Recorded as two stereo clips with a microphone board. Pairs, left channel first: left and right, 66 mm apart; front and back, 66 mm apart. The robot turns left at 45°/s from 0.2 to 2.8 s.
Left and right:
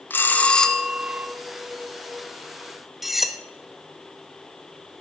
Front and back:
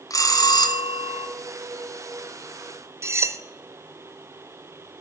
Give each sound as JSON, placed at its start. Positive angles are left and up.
{"t": 0.1, "sound": "a bell", "azimuth_deg": 30, "distance_m": 0.9}
{"t": 3.0, "sound": "cutlery clinking", "azimuth_deg": -175, "distance_m": 0.7}